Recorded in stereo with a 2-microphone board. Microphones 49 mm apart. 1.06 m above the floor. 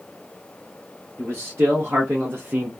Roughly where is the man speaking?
Right.